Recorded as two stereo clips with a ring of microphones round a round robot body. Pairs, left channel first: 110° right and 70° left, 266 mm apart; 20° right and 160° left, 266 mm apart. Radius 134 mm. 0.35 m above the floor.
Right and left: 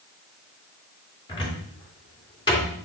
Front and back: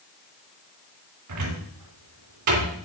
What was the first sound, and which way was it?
A cupboard door, 175° left.